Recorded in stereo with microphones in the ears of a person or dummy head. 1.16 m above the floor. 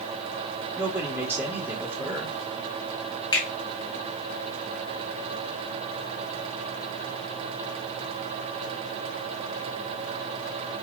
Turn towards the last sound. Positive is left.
turn(degrees=30)  # may be behind; listen again after turning